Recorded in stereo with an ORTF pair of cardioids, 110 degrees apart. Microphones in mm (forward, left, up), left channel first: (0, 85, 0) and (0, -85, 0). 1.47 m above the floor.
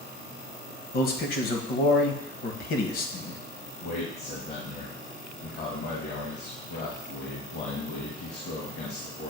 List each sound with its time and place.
0.9 s a man speaking: 65° left, 1.3 m
3.8 s a man speaking: 70° left, 1.8 m